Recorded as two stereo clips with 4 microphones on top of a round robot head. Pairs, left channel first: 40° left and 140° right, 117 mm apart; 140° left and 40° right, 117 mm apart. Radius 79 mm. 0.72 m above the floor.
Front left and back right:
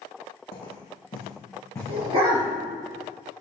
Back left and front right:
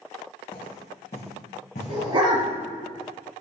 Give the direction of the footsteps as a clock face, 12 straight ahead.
9 o'clock.